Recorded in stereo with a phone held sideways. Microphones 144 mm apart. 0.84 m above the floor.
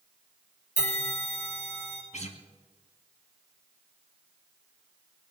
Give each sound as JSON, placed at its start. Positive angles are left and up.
{"t": 0.8, "sound": "a bell", "side_deg": -65, "distance_m": 4.5}
{"t": 2.1, "sound": "a guitar", "side_deg": 55, "distance_m": 2.0}